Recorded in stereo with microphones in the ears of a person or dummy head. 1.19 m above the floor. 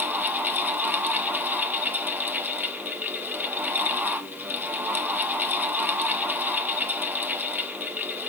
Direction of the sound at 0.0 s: Centre (ahead or behind).